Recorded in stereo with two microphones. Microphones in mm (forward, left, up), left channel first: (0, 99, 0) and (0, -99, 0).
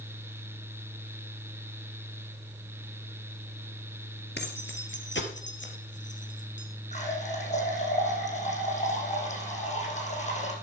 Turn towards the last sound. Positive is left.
turn(degrees=35)  # may be behind; listen again after turning